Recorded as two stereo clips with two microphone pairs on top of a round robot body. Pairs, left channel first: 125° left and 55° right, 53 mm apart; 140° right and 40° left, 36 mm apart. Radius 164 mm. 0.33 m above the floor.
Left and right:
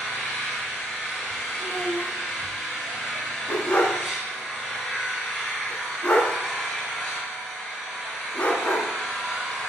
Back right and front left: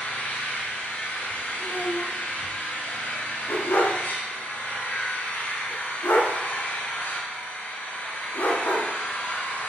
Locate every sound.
0.0 s an engine running: 145° right, 4.5 m
1.6 s a child speaking: 175° right, 1.4 m
3.5 s a dog barking: 170° right, 1.4 m